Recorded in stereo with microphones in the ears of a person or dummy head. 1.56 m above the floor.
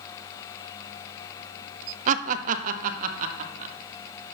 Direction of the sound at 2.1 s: 45° right (ahead or behind).